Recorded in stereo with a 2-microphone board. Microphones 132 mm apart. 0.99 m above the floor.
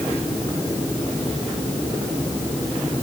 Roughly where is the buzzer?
I don't hear a buzzer.